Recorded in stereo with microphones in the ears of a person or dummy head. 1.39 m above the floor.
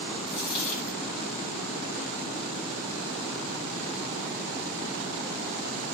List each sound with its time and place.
0.3 s a dropped coin: 35° left (ahead or behind), 2.0 m